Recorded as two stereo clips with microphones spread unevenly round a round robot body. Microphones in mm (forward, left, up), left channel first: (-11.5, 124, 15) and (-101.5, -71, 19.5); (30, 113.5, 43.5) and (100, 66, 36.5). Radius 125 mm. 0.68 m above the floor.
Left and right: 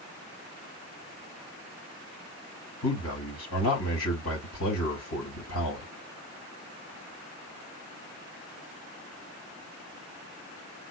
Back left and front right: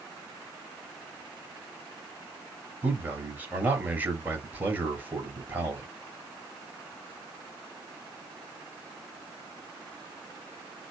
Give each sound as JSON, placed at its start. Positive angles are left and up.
{"t": 2.8, "sound": "a man speaking", "azimuth_deg": 30, "distance_m": 3.0}